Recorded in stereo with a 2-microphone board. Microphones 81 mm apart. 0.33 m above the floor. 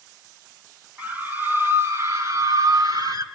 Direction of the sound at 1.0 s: 20° right (ahead or behind).